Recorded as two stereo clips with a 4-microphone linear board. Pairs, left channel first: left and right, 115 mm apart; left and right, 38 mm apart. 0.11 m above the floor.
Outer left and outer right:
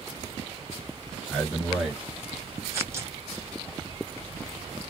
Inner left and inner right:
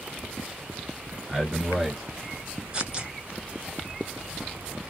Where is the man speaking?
5° left (ahead or behind), 2 m; by 2.6 s 20° right (ahead or behind), 1.8 m.